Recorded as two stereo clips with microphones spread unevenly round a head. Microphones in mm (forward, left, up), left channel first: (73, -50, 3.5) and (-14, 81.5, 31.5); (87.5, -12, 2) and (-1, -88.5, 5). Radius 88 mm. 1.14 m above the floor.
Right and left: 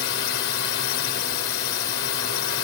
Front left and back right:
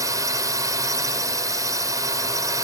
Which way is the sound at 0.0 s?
80° right.